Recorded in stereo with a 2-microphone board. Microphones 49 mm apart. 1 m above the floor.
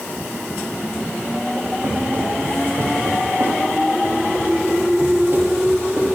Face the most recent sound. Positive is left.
turn(degrees=-45)  # may be behind; listen again after turning